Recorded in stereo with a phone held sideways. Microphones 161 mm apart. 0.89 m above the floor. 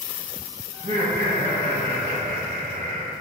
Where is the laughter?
50° right (ahead or behind), 1.3 m; by 3.1 s 60° right (ahead or behind), 3 m.